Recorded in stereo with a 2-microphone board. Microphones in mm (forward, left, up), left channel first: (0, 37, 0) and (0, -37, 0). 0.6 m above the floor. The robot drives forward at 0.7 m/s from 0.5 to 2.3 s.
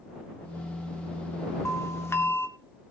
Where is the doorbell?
40° left (ahead or behind), 1.5 m; by 2.5 s 35° left (ahead or behind), 1.7 m.